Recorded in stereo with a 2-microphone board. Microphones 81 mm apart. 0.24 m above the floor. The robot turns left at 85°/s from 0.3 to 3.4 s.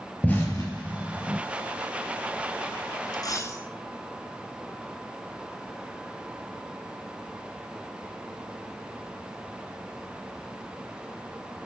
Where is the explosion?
20° left (ahead or behind), 3.5 m; by 1.4 s 65° left (ahead or behind), 3.5 m.